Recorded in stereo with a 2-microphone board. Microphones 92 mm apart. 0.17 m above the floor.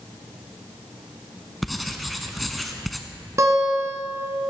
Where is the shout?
I don't hear a shout.